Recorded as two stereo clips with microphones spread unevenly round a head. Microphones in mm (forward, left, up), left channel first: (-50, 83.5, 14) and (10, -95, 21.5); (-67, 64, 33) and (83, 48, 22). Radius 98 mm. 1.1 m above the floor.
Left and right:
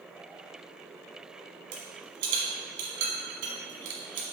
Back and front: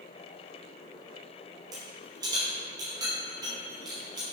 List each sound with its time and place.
1.7 s a rattle: 75° right, 1.6 m